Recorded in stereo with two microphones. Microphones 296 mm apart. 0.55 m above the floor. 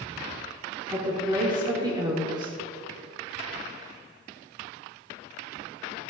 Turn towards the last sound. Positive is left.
turn(degrees=-15)  # may be behind; listen again after turning